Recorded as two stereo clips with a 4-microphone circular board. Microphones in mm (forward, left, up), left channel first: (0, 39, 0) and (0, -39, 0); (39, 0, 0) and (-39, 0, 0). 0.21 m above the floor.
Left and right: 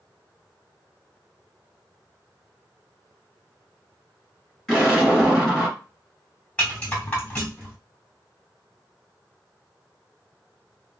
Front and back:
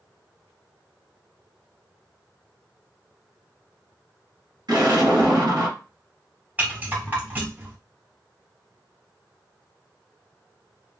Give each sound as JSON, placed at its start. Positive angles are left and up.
{"t": 4.7, "sound": "an explosion", "azimuth_deg": 180, "distance_m": 2.0}
{"t": 6.6, "sound": "a rattle", "azimuth_deg": 140, "distance_m": 1.5}